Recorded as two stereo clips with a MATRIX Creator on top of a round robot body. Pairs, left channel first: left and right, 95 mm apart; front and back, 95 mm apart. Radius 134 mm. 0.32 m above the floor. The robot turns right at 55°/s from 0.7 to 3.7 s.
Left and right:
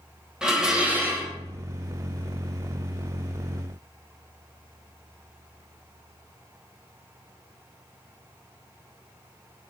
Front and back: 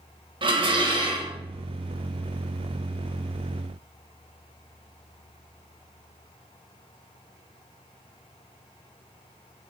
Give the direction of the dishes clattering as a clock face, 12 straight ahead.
6 o'clock.